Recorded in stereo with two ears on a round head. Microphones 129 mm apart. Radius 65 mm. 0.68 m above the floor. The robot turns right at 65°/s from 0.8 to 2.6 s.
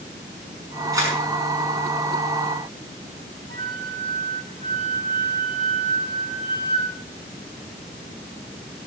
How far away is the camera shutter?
About 6 m.